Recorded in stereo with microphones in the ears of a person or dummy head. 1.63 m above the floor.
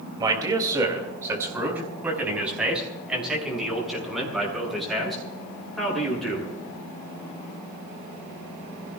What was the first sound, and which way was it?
A man speaking, 25° right (ahead or behind).